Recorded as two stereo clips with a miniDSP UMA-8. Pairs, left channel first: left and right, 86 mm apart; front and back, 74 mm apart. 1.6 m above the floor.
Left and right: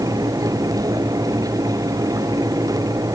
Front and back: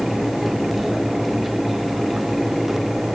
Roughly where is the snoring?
I don't hear snoring.